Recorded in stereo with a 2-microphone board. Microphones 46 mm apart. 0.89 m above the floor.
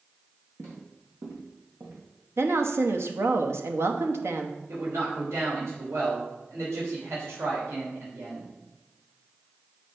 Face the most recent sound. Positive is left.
turn(degrees=-85)